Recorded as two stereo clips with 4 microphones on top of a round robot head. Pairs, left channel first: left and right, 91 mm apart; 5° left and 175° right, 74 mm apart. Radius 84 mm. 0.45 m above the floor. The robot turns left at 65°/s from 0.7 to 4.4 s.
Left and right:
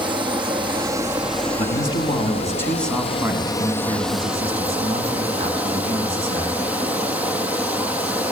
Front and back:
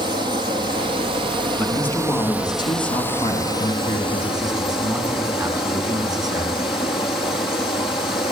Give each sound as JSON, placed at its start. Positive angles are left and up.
{"t": 0.0, "sound": "running water", "azimuth_deg": -135, "distance_m": 2.5}
{"t": 1.6, "sound": "a man speaking", "azimuth_deg": 90, "distance_m": 5.0}